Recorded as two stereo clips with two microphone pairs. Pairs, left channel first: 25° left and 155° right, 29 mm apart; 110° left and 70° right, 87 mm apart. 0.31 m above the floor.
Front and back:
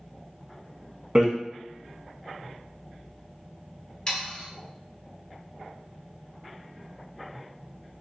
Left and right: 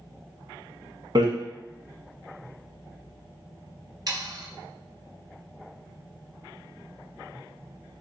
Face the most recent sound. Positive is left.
turn(degrees=-35)